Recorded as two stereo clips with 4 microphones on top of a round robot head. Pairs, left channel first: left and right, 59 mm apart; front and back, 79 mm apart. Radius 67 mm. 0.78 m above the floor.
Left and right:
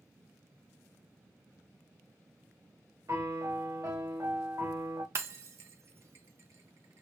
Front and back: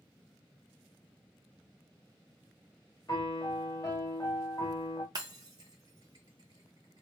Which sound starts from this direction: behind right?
Breaking glass, at 5.2 s.